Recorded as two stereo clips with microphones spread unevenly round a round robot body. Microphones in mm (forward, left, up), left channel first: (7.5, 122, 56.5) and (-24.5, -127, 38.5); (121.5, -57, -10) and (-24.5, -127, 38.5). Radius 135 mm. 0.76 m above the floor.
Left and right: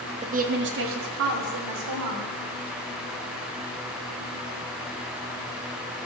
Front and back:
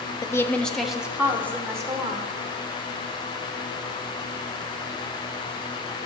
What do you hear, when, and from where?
0.2 s a woman speaking: 35° right, 0.9 m; by 2.3 s 80° right, 2.5 m